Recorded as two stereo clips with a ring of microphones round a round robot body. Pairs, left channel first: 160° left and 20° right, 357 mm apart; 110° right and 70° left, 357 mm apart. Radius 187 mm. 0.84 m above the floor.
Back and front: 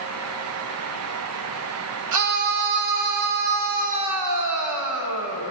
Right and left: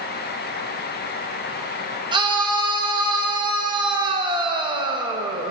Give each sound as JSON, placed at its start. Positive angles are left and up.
{"t": 2.1, "sound": "a scream", "azimuth_deg": -5, "distance_m": 1.2}